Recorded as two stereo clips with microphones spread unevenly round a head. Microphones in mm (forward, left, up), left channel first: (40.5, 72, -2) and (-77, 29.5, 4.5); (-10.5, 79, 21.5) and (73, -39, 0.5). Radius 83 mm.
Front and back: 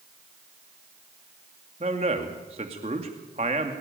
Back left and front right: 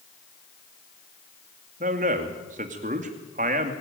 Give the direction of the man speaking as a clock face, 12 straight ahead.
3 o'clock.